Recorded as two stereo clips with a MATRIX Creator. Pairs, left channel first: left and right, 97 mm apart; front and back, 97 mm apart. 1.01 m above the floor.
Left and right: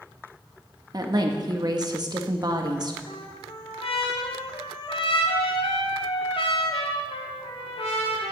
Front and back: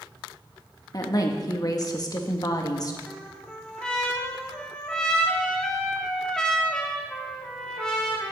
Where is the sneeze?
I don't hear a sneeze.